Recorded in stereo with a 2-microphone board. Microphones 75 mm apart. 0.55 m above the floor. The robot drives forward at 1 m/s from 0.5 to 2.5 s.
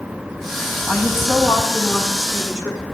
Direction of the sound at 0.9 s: 15° right (ahead or behind).